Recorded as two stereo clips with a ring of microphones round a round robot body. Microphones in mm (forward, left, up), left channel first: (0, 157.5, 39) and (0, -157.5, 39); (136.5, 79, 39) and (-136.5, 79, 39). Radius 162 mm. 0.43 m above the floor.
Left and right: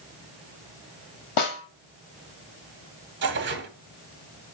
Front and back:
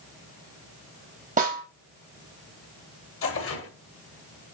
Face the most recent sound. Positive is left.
turn(degrees=-40)